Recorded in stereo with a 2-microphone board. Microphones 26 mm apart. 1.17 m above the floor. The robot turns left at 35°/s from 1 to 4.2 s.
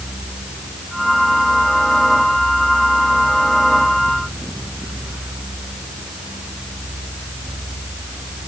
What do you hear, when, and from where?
Only background noise.